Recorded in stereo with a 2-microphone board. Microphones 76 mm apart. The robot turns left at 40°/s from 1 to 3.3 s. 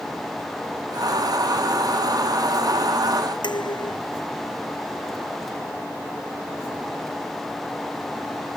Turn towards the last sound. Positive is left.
turn(degrees=80)